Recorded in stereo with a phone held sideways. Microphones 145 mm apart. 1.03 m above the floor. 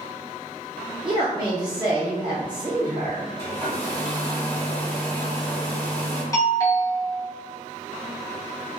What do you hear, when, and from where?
1.1 s a woman speaking: 25° right (ahead or behind), 0.6 m
3.4 s a hair dryer: 20° left (ahead or behind), 1.3 m
6.3 s a doorbell: 20° left (ahead or behind), 0.9 m